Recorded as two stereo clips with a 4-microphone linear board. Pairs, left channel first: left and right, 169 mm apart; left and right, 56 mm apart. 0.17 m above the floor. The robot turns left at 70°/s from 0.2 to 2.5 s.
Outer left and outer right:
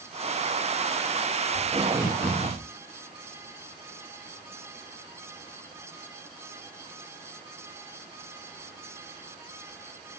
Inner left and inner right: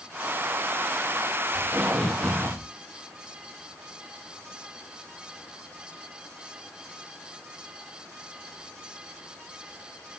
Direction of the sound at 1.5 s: 135° right.